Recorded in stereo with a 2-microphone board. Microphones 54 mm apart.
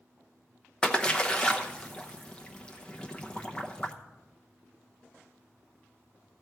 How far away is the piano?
No piano in this recording.